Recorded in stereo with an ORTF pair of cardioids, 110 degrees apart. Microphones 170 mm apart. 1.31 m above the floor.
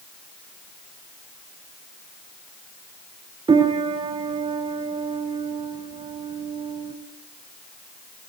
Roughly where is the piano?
Ahead right.